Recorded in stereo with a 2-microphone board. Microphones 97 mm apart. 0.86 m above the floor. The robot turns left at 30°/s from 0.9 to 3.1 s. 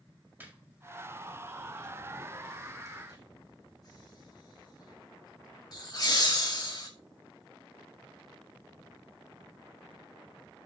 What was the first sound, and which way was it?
Laughter, 20° right (ahead or behind).